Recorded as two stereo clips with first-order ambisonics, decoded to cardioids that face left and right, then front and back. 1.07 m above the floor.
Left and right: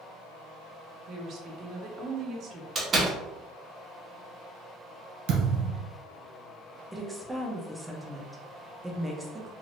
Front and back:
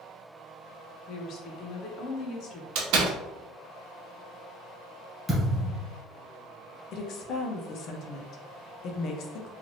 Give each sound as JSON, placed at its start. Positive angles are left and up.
{"t": 1.1, "sound": "a woman speaking", "azimuth_deg": -40, "distance_m": 0.7}
{"t": 2.8, "sound": "a door slam", "azimuth_deg": -160, "distance_m": 0.7}
{"t": 5.3, "sound": "a thud", "azimuth_deg": -85, "distance_m": 1.8}
{"t": 6.9, "sound": "a woman speaking", "azimuth_deg": -5, "distance_m": 0.5}